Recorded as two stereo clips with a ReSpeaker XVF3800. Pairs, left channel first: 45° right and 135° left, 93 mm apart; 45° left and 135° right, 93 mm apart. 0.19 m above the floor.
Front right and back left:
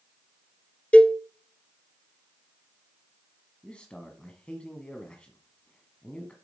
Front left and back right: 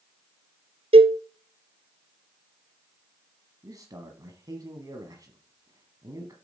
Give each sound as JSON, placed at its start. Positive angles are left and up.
{"t": 0.9, "sound": "a cowbell", "azimuth_deg": -120, "distance_m": 0.7}
{"t": 3.6, "sound": "a man speaking", "azimuth_deg": -120, "distance_m": 1.3}